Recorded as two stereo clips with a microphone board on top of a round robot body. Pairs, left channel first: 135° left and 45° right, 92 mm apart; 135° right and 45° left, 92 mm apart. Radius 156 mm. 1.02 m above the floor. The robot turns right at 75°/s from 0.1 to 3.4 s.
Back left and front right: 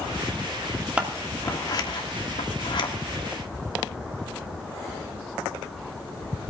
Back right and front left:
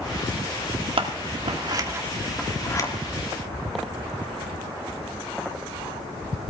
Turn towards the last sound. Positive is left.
turn(degrees=-145)